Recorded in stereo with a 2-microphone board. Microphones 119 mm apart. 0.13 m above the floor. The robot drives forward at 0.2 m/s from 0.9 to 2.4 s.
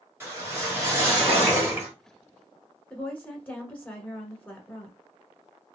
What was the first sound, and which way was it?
A whoosh, 20° right (ahead or behind).